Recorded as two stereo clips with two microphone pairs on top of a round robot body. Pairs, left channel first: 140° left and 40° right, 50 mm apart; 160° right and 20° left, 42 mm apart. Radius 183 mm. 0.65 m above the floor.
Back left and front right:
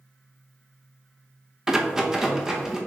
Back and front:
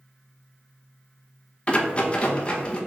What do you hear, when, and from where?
1.7 s a rattle: 115° right, 1.1 m